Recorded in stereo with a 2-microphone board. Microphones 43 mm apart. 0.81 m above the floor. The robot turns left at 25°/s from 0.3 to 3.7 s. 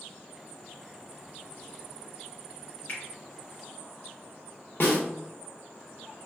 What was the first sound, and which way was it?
A finger snap, 45° left (ahead or behind).